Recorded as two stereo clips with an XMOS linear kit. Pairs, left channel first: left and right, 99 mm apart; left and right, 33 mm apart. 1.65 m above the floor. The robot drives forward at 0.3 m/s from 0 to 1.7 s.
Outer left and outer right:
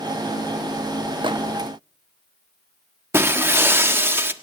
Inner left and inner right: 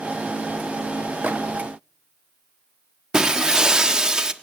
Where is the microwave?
60° right (ahead or behind), 1.2 m; by 1.4 s 55° right (ahead or behind), 1.2 m.